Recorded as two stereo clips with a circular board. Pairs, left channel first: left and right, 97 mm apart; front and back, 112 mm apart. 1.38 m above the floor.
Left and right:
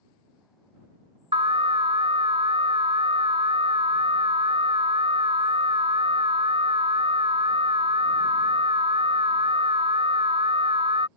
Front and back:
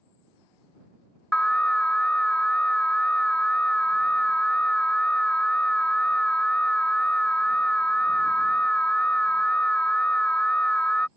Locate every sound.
1.3 s an alarm: 80° right